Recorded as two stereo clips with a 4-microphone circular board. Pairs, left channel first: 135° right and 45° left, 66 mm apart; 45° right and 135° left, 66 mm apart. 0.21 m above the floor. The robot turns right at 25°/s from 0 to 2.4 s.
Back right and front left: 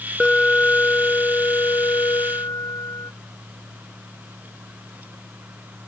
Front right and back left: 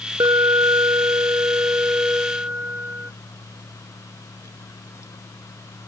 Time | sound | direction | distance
0.2 | an alarm | 145° left | ?